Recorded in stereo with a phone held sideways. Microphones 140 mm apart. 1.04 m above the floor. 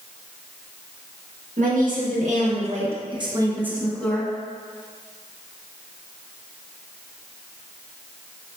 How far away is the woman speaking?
About 1.7 m.